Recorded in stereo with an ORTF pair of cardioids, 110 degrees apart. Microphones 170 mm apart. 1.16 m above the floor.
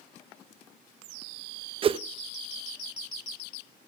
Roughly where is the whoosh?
Ahead right.